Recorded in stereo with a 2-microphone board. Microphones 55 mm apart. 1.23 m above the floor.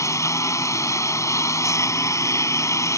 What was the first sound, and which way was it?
A lawn mower, 75° left (ahead or behind).